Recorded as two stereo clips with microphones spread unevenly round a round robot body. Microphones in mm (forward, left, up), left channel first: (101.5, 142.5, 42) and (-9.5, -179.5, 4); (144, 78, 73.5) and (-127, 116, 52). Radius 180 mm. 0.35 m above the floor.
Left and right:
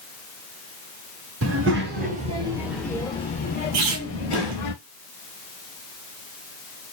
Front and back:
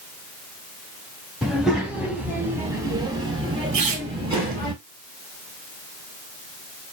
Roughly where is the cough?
I don't hear a cough.